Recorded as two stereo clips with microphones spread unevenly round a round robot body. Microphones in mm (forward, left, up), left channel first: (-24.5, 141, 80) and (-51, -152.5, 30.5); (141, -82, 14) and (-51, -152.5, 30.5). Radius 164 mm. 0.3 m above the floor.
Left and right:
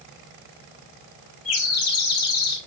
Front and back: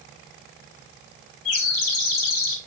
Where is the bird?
35° left, 0.9 m.